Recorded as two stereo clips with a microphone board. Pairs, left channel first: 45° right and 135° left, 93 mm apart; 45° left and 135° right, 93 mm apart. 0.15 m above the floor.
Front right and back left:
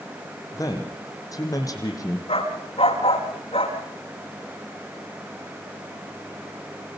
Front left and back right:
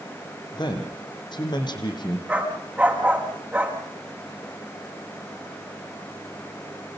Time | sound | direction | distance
0.5 | a man speaking | 5° left | 5.5 m
2.3 | a dog barking | 55° right | 7.5 m